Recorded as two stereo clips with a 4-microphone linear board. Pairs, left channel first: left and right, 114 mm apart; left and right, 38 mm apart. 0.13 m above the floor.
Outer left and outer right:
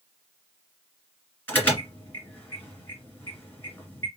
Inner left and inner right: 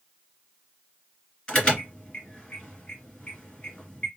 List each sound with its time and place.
1.5 s an alarm: 15° left (ahead or behind), 2.5 m